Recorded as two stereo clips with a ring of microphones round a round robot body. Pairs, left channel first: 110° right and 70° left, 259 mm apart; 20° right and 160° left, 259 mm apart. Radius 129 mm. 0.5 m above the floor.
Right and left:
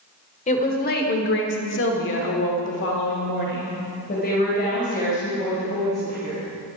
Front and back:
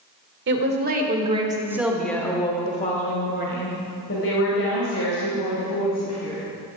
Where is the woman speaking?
170° right, 1.8 m; by 6.5 s 50° right, 4 m.